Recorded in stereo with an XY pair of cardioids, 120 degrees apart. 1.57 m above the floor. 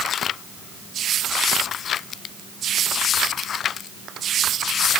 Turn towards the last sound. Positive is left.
No sound to turn to.